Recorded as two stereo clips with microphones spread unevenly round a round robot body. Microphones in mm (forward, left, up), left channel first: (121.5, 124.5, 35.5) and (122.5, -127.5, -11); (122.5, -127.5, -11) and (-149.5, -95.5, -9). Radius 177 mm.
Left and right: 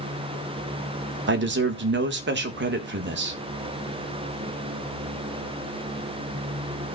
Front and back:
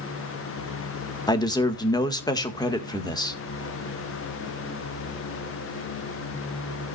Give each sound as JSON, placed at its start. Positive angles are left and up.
{"t": 1.3, "sound": "a man speaking", "azimuth_deg": -80, "distance_m": 1.4}